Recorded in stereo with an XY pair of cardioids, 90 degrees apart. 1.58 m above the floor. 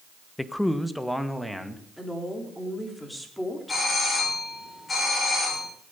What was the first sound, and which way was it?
A man speaking, 10° left.